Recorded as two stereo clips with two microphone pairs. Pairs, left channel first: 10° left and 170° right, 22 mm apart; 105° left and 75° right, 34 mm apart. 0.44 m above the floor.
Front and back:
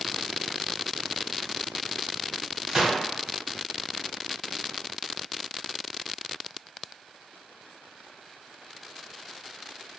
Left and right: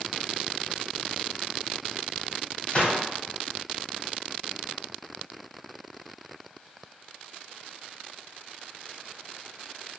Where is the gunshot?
140° left, 1.4 m.